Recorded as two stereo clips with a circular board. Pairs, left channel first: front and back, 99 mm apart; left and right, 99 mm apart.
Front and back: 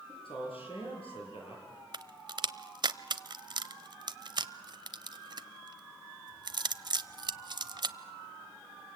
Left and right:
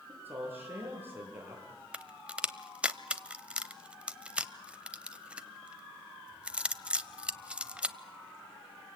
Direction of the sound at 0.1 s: 20° right.